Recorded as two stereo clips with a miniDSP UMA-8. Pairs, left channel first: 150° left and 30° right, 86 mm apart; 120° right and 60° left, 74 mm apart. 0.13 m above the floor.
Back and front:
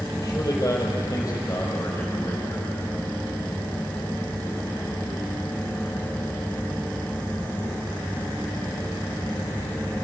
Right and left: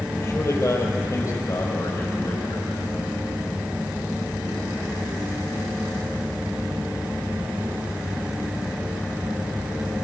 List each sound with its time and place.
0.2 s a man speaking: 165° right, 4.5 m; by 2.8 s 160° right, 6.5 m